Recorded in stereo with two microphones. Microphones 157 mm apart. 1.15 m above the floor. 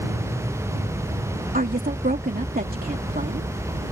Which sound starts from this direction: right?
A woman speaking, at 1.5 s.